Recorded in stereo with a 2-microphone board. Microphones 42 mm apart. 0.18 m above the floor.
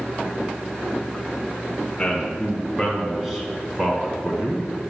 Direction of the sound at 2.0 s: 10° left (ahead or behind).